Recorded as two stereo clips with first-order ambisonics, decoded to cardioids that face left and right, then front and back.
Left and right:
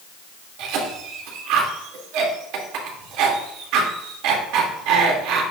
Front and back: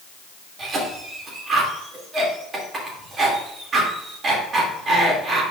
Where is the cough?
115° right, 2.5 m.